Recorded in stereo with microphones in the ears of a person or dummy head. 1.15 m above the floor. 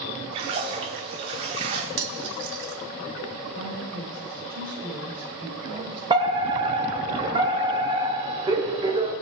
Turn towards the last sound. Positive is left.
turn(degrees=-25)  # may be behind; listen again after turning